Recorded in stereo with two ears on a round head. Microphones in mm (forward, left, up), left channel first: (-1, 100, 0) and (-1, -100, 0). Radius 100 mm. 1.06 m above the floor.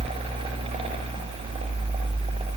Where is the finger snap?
I don't hear a finger snap.